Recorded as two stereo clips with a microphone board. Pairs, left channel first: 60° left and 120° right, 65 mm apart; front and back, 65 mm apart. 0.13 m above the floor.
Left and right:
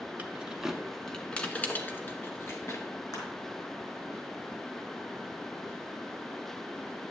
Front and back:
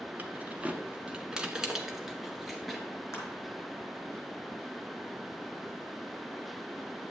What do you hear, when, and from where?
0.2 s keys jangling: 155° right, 0.8 m; by 2.8 s 90° left, 1.4 m
3.1 s crushing: 45° left, 4 m